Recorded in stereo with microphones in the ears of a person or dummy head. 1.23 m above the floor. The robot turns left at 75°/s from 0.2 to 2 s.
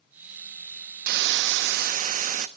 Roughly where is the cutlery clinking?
No cutlery clinking in this recording.